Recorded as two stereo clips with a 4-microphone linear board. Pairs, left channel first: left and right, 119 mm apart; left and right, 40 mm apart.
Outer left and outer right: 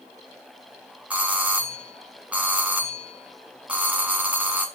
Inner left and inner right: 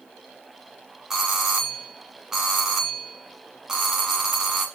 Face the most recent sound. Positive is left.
turn(degrees=-10)  # may be behind; listen again after turning